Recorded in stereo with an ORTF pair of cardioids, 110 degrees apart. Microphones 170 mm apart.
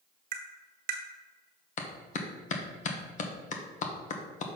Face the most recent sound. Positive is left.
turn(degrees=50)